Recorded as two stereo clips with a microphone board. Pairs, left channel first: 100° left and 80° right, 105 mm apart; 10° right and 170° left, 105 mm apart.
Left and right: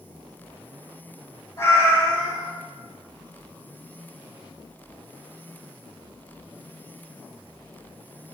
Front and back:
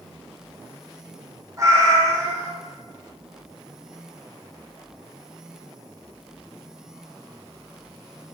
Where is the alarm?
No alarm in this recording.